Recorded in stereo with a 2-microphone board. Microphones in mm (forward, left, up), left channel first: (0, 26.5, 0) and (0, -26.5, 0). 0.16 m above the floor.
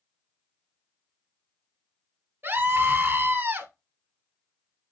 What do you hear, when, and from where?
2.4 s a scream: 45° right (ahead or behind), 1.4 m